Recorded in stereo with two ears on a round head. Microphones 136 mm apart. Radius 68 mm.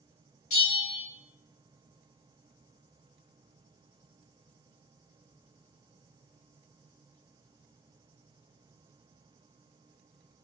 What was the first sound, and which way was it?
A bell, 55° left (ahead or behind).